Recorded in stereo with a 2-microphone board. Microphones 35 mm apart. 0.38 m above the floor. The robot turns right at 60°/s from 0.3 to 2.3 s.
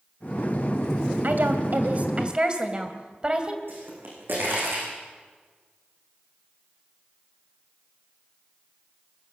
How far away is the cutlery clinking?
I don't hear cutlery clinking.